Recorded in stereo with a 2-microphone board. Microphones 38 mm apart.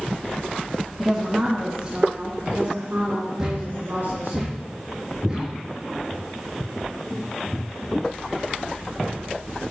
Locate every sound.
1.0 s a woman speaking: centre (ahead or behind), 2.5 m; by 4.4 s 60° right (ahead or behind), 4.5 m
3.4 s a thud: 15° right (ahead or behind), 6 m